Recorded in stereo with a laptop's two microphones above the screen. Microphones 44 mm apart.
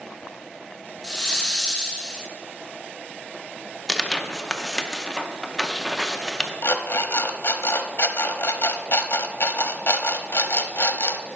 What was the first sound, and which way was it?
A hiss, 15° left (ahead or behind).